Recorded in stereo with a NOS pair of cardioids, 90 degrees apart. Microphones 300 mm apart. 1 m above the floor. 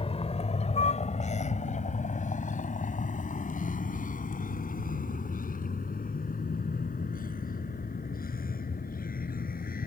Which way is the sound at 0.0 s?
20° left.